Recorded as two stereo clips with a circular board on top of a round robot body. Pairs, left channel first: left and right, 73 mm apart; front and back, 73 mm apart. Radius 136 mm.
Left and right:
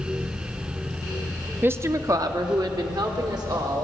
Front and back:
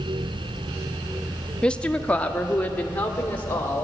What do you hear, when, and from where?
1.6 s a woman speaking: 65° right, 0.7 m